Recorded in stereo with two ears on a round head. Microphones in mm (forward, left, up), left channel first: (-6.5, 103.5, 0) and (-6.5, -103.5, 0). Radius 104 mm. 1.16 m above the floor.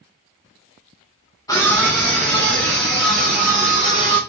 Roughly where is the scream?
Centre.